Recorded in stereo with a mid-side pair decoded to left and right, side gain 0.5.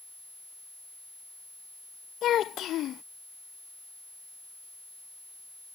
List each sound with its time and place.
2.2 s a child speaking: 60° left